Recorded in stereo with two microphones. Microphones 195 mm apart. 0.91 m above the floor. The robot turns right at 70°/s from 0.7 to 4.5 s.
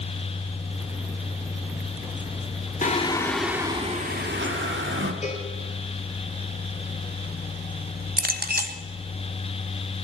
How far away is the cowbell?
About 3 m.